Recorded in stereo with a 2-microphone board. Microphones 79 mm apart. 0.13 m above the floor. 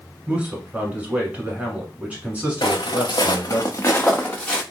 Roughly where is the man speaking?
Centre.